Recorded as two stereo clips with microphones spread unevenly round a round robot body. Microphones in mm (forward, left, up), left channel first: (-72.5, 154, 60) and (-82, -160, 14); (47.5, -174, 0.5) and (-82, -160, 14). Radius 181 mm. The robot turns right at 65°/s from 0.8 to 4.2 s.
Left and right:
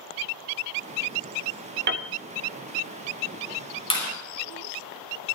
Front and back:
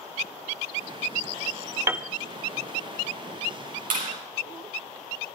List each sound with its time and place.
1.9 s a piano: 120° right, 1.3 m; by 2.1 s 105° right, 1.3 m
3.9 s a clap: 160° left, 9 m; by 4.1 s 175° left, 9 m